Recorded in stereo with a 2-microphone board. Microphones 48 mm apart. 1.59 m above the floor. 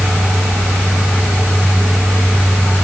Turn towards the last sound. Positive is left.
No sound to turn to.